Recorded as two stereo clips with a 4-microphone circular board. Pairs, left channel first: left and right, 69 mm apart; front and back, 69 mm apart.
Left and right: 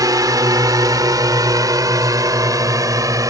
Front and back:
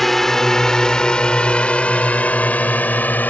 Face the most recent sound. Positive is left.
turn(degrees=-60)